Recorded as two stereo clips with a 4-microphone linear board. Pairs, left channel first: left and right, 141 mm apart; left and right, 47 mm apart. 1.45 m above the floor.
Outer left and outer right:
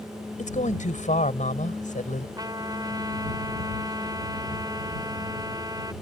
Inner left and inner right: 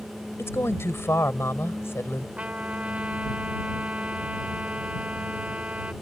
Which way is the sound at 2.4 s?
30° right (ahead or behind).